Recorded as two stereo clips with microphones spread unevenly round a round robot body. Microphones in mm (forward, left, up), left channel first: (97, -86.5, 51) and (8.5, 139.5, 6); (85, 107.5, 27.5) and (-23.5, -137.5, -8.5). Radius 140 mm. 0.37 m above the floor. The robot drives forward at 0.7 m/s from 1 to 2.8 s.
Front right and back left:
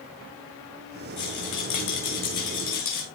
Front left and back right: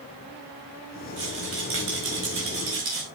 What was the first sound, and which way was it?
A rattle, 70° right.